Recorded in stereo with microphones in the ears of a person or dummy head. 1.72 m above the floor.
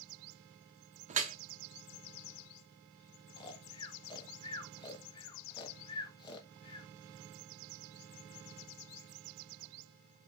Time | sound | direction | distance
1.1 | dripping | 35° right (ahead or behind) | 0.8 m
3.4 | snoring | 30° left (ahead or behind) | 1.1 m